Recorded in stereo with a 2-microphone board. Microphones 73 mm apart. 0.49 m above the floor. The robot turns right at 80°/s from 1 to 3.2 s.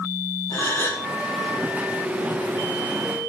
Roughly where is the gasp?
Left.